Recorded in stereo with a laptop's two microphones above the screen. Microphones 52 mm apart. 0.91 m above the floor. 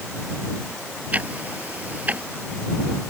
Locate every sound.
1.1 s ticking: 30° right (ahead or behind)